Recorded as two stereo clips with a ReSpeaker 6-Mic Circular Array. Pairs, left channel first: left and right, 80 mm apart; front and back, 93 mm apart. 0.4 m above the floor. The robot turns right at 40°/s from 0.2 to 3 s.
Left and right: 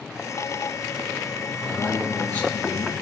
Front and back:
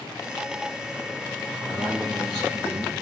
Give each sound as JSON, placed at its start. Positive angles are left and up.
{"t": 1.6, "sound": "a man speaking", "azimuth_deg": 135, "distance_m": 6.0}